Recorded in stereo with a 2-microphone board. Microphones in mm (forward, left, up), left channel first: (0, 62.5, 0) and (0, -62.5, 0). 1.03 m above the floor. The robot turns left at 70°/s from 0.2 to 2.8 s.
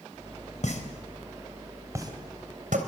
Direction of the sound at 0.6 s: 70° left (ahead or behind).